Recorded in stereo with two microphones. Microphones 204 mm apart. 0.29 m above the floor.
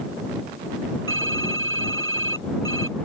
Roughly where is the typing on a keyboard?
Right.